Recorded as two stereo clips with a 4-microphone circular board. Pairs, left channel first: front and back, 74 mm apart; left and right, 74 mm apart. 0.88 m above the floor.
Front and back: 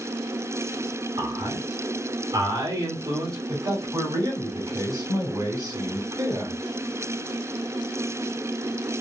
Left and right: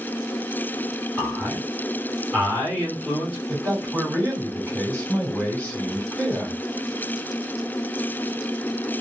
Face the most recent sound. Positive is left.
turn(degrees=160)